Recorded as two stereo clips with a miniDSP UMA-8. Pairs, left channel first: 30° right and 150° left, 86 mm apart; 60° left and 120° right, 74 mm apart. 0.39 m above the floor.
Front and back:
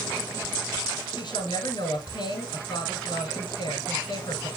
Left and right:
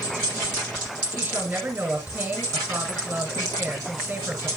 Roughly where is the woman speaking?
Ahead right.